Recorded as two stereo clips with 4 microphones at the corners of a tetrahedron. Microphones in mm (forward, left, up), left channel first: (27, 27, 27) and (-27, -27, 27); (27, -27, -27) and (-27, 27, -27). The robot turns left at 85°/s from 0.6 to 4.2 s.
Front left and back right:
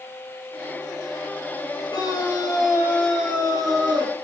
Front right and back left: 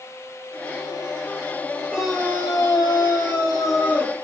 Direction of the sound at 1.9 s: 55° left.